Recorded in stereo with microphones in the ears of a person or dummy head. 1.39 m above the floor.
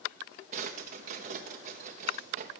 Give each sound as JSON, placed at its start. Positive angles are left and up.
{"t": 0.5, "sound": "a drawer", "side_deg": -50, "distance_m": 0.9}